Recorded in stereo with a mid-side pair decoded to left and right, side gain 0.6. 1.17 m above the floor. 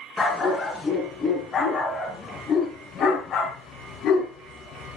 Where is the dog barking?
30° left, 5.5 m; by 5.0 s 70° left, 4.5 m.